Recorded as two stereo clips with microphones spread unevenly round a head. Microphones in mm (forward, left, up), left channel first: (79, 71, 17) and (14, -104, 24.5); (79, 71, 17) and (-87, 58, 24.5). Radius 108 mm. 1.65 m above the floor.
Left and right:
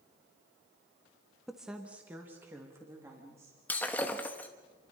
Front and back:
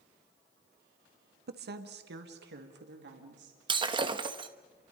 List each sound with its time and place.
1.5 s a woman speaking: 160° left, 1.3 m; by 3.6 s 175° left, 4 m
3.7 s breaking glass: 150° left, 1.1 m